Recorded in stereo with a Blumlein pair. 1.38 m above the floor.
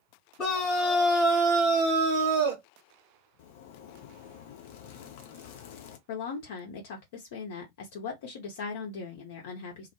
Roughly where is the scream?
Ahead left.